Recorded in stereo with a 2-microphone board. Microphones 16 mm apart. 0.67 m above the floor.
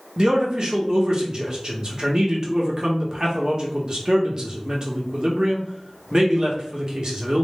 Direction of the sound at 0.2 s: 45° right (ahead or behind).